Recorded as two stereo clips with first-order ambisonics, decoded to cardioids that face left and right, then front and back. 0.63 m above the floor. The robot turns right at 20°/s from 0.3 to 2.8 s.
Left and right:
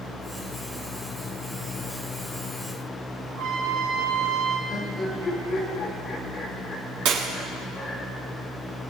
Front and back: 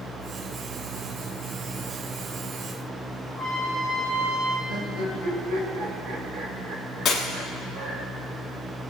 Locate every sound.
3.3 s a trumpet: 90° right, 4 m
4.7 s laughter: 170° left, 2.5 m
7.0 s breaking glass: 65° right, 2.5 m